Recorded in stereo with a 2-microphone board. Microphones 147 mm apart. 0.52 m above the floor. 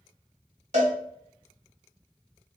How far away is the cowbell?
About 1.9 m.